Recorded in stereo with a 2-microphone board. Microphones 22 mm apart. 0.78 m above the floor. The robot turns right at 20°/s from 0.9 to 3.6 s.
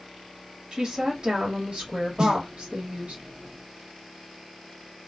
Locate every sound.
0.7 s a woman speaking: 140° right, 1.4 m; by 3.2 s 95° right, 1.4 m
2.2 s a snare drum: 40° right (ahead or behind), 0.6 m; by 2.4 s 35° right (ahead or behind), 0.6 m